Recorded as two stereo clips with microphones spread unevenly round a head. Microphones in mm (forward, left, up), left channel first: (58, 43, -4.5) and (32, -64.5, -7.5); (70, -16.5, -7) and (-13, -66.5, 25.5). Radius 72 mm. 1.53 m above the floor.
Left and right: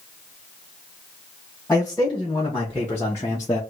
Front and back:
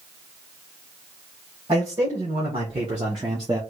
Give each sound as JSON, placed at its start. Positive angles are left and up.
{"t": 1.7, "sound": "a man speaking", "azimuth_deg": 160, "distance_m": 2.0}